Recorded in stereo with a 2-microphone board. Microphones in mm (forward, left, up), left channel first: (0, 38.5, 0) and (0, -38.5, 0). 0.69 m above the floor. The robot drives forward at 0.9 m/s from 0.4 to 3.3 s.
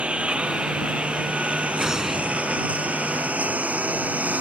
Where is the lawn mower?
15° right (ahead or behind); by 4.4 s 20° right (ahead or behind).